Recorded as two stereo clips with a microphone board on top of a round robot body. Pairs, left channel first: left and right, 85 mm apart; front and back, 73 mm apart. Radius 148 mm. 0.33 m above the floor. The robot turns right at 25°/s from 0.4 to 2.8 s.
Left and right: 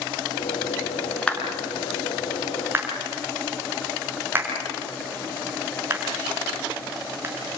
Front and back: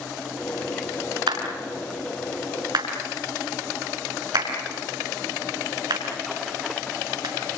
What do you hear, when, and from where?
1.3 s a clap: 165° left, 5.5 m; by 7.3 s 155° right, 5.5 m